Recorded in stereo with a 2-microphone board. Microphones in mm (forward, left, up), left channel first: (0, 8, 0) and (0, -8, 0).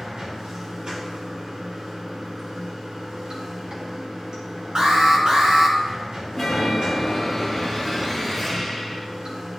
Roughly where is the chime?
Centre.